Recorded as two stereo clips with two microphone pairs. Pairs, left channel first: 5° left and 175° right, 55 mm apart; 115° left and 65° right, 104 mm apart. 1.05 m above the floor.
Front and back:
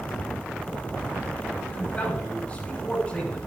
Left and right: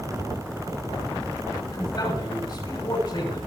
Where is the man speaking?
75° left, 6.5 m.